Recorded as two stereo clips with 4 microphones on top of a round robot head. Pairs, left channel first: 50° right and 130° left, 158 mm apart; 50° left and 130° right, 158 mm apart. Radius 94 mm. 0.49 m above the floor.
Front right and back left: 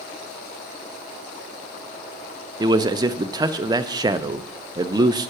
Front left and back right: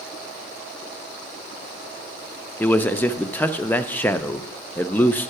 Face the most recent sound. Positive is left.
turn(degrees=110)